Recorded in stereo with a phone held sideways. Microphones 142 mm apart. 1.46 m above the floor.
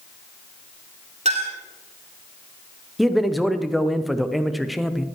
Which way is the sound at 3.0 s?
Centre (ahead or behind).